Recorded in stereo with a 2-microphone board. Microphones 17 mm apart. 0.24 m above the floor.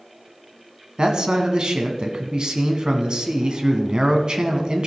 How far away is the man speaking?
About 1.8 m.